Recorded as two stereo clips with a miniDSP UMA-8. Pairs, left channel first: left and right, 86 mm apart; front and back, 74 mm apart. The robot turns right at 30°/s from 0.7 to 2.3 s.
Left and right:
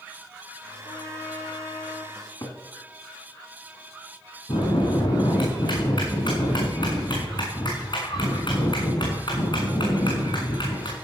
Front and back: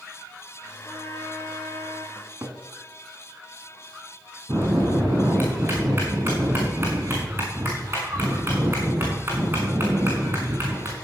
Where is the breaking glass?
No breaking glass in this recording.